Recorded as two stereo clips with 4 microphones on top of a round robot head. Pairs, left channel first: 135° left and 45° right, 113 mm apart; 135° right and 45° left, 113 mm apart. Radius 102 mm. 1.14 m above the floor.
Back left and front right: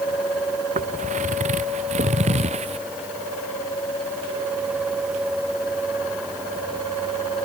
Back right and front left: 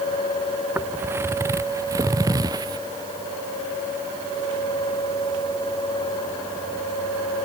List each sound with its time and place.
0.8 s footsteps: 30° right; by 2.8 s 15° right